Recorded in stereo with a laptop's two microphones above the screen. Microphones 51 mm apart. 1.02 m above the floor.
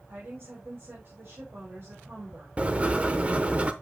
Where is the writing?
25° right (ahead or behind), 0.7 m.